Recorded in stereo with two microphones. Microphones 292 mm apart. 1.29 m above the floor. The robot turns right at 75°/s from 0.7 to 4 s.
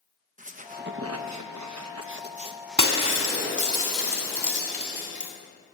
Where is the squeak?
150° right, 0.8 m; by 3.8 s 80° left, 0.8 m.